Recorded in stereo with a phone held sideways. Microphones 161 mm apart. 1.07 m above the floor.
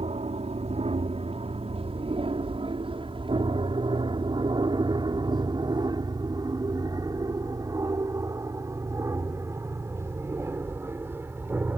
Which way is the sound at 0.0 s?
40° right (ahead or behind).